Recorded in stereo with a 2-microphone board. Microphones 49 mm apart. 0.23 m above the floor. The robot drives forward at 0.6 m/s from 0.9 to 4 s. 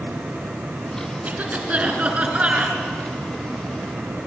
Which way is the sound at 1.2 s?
30° right (ahead or behind).